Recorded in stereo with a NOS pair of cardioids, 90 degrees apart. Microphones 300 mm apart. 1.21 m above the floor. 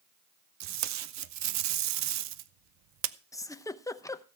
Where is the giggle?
10° left, 0.7 m.